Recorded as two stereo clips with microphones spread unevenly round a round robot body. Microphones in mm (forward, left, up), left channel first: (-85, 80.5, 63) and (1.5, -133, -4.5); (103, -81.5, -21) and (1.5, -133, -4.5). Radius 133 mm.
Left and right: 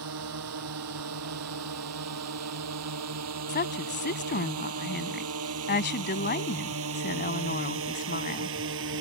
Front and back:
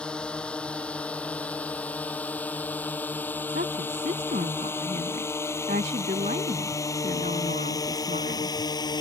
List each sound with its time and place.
0.0 s a drone: 55° right; by 9.0 s 25° right
3.5 s a woman speaking: 160° left